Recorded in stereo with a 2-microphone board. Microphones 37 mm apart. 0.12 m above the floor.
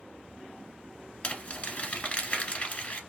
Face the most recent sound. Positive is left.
turn(degrees=30)  # may be behind; listen again after turning